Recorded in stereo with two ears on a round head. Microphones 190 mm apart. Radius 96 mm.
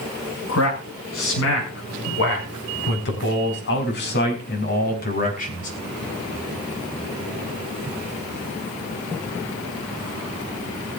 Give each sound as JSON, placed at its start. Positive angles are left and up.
{"t": 0.5, "sound": "a man speaking", "side_deg": 75, "distance_m": 6.0}